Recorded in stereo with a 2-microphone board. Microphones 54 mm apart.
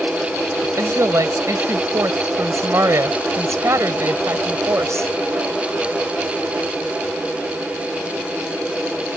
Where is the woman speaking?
65° right (ahead or behind).